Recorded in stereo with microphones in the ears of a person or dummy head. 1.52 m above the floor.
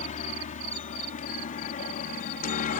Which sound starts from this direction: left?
A helicopter, at 0.0 s.